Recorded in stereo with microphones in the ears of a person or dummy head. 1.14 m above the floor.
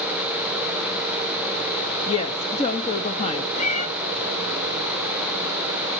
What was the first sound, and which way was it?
A woman speaking, 35° left (ahead or behind).